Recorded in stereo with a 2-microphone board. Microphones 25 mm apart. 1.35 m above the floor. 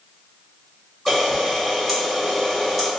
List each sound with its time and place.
1.1 s a camera shutter: 5° left (ahead or behind), 1.8 m